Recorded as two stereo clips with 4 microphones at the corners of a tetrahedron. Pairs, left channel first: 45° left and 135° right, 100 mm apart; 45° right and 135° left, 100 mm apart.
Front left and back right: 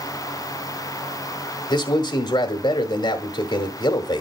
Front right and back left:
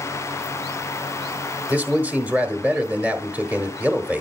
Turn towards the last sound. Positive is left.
turn(degrees=65)